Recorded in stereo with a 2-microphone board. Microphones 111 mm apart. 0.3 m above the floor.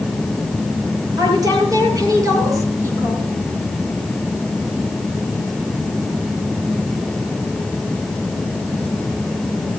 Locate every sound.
1.2 s a woman speaking: 35° right (ahead or behind), 6.5 m; by 3.3 s 20° right (ahead or behind), 4.5 m